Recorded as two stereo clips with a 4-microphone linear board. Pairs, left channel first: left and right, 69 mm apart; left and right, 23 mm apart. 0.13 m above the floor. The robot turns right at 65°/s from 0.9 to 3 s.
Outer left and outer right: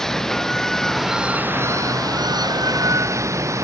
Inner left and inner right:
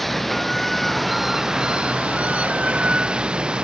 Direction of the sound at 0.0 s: 170° left.